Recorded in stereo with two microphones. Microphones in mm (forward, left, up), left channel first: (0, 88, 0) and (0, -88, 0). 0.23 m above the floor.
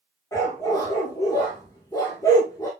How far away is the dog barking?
About 5 m.